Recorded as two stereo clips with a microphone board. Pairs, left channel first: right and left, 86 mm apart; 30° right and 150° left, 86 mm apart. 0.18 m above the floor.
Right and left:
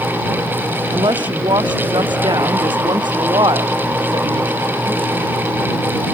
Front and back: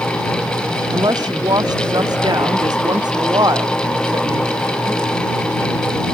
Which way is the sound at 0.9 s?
110° left.